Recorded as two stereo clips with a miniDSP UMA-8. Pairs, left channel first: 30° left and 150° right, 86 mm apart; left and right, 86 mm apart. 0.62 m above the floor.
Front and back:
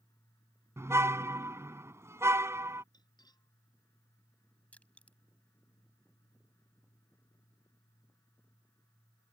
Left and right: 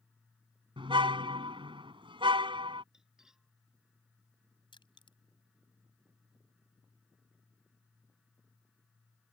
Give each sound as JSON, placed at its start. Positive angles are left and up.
{"t": 0.8, "sound": "a car horn", "azimuth_deg": -90}
{"t": 2.9, "sound": "cutlery clinking", "azimuth_deg": -5}
{"t": 4.7, "sound": "crushing", "azimuth_deg": 105}